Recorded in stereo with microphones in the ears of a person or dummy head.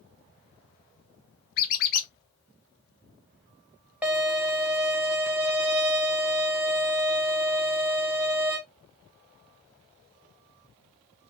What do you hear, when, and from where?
1.6 s a squeak: 55° left (ahead or behind), 0.5 m
4.0 s a violin: 5° right (ahead or behind), 0.6 m